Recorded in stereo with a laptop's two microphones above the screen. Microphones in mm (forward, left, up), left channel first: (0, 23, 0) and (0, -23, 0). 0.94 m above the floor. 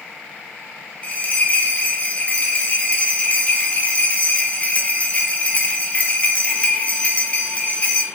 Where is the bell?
30° left (ahead or behind), 0.5 m.